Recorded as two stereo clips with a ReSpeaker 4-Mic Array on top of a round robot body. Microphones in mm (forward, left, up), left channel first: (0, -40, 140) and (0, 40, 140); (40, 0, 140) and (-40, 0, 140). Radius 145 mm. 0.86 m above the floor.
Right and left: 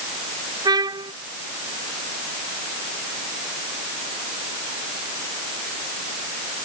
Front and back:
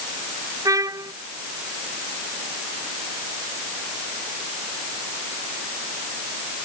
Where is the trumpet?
130° left.